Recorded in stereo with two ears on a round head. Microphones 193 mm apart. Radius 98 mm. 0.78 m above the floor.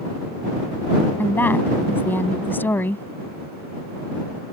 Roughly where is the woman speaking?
Centre.